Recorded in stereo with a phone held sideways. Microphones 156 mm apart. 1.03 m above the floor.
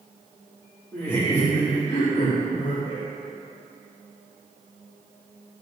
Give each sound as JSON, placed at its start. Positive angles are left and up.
{"t": 0.9, "sound": "laughter", "side_deg": 15, "distance_m": 2.0}